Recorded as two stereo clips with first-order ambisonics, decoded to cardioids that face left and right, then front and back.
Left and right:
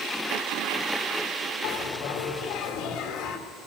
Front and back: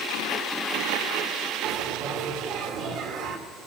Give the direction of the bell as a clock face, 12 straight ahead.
7 o'clock.